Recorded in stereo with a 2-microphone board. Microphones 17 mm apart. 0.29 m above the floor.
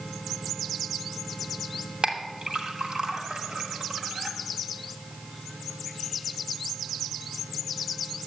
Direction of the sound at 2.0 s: 50° right (ahead or behind).